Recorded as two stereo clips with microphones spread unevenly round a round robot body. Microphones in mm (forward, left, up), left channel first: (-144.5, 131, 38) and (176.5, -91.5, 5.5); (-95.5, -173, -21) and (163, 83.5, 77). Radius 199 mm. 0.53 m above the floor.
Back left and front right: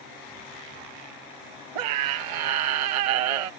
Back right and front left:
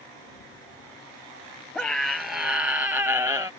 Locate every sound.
1.8 s a scream: 45° right; by 3.5 s 35° right